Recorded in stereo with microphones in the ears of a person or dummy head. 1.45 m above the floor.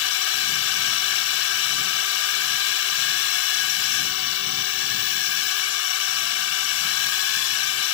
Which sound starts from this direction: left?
A drone, at 0.0 s.